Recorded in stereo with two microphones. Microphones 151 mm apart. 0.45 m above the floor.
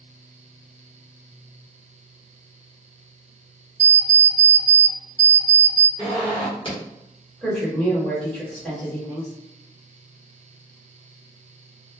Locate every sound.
3.8 s an alarm clock: 50° right (ahead or behind), 0.6 m
6.0 s a zipper: 35° left (ahead or behind), 1.3 m
7.4 s a woman speaking: 10° left (ahead or behind), 1.4 m